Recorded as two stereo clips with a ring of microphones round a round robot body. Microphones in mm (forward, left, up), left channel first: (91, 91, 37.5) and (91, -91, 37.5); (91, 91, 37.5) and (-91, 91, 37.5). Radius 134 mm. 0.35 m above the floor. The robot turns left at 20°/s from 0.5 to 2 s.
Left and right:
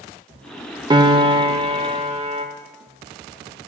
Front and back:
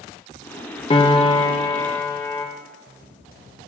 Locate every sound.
0.9 s a piano: 40° right, 1.0 m; by 2.5 s 60° right, 1.0 m